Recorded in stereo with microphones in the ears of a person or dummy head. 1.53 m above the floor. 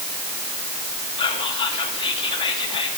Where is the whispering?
30° left (ahead or behind), 2.5 m.